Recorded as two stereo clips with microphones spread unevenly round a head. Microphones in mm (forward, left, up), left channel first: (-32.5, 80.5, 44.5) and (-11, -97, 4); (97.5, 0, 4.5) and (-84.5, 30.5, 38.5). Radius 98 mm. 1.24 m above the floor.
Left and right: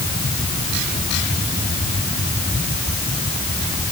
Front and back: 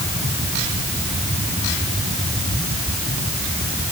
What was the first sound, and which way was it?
Only background noise.